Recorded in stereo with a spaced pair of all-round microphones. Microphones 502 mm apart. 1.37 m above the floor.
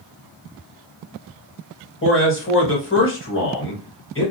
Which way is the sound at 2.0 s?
25° left (ahead or behind).